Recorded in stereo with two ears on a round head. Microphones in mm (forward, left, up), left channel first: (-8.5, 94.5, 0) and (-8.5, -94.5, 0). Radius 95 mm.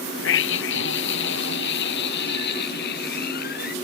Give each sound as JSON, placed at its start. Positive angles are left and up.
{"t": 0.2, "sound": "a scream", "side_deg": 60}